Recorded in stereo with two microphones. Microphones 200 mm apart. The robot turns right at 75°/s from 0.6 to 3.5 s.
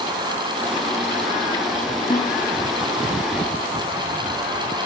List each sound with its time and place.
2.1 s a snare drum: 25° left (ahead or behind), 6.5 m; by 2.4 s 45° left (ahead or behind), 6.5 m